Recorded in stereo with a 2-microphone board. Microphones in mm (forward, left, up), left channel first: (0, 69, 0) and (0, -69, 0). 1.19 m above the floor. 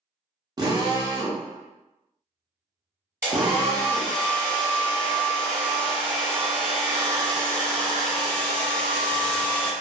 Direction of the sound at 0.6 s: 30° right (ahead or behind).